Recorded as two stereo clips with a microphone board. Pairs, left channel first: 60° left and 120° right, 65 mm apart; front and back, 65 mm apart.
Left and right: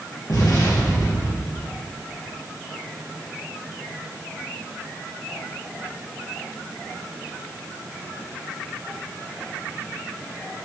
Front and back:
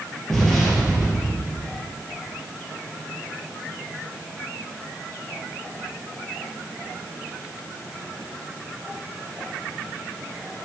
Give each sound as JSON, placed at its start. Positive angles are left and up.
{"t": 0.3, "sound": "an explosion", "azimuth_deg": 85, "distance_m": 3.0}